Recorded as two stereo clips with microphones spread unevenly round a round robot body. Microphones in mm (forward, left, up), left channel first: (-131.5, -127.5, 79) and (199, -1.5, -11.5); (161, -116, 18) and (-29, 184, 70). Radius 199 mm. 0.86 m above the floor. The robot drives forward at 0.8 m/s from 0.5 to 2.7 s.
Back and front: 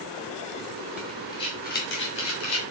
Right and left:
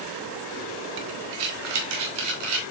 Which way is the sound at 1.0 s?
115° left.